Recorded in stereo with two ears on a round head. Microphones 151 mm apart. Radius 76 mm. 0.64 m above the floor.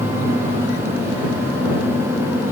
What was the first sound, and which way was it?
Only background noise.